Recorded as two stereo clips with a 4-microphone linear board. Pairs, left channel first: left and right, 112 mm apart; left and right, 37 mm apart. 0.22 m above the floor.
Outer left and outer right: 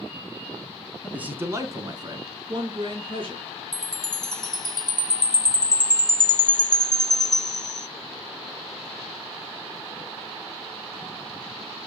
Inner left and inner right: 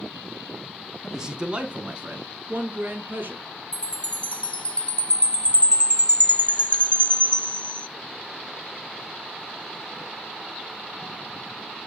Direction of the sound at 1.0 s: 10° right (ahead or behind).